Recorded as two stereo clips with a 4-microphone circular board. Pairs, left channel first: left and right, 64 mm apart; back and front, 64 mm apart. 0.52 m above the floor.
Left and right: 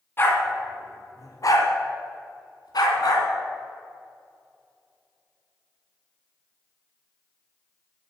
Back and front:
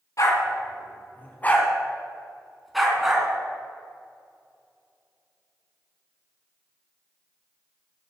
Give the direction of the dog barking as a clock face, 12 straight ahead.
7 o'clock.